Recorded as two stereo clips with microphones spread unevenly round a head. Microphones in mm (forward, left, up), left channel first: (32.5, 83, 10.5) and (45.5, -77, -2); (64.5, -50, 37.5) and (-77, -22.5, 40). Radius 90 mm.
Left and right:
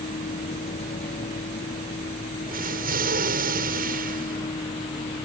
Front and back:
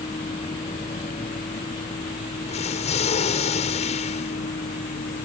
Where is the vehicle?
50° left; by 5.2 s 35° left.